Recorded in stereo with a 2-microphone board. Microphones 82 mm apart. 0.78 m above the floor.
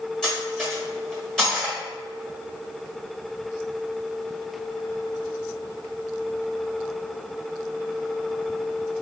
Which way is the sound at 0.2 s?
10° left (ahead or behind).